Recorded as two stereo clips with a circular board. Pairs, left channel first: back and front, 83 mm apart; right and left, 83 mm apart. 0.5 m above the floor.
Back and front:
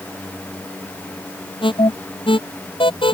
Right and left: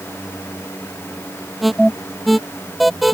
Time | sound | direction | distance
1.6 | an alarm | straight behind | ?